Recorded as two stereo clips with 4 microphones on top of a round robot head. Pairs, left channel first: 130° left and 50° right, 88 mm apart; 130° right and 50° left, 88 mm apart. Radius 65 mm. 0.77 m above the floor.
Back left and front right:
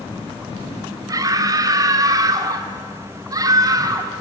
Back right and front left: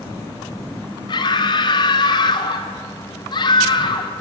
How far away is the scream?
About 2.5 m.